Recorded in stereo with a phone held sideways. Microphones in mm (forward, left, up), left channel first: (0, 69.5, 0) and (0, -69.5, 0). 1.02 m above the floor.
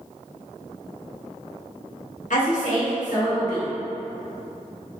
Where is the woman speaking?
65° left (ahead or behind), 1.0 m.